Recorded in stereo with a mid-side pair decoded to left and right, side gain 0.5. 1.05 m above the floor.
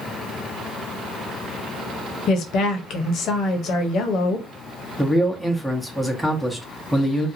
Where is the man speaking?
Straight ahead, 1.0 m.